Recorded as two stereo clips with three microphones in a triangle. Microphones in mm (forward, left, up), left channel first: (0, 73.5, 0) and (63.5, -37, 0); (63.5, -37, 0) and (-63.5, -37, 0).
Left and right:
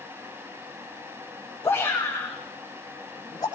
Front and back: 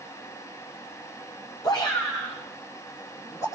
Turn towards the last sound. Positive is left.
turn(degrees=65)